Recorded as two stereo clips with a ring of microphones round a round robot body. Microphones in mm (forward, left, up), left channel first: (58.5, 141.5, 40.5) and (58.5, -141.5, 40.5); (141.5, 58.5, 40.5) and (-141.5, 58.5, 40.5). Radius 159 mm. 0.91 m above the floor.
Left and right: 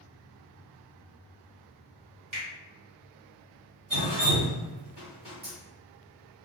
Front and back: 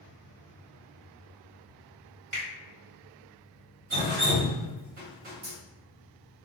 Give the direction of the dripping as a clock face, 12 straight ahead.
5 o'clock.